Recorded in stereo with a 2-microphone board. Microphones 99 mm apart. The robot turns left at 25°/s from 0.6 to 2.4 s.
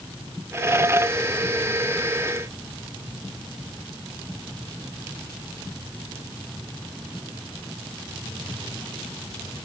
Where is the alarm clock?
I don't hear an alarm clock.